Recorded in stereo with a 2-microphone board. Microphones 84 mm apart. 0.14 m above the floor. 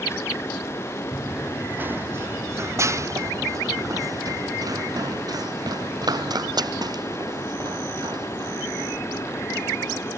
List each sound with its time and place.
1.1 s running footsteps: 15° right (ahead or behind); by 10.1 s 60° right (ahead or behind)